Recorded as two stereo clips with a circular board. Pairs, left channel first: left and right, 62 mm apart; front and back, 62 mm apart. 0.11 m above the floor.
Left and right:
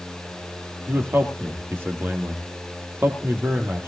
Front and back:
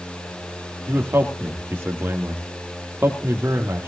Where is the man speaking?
135° right, 3 m.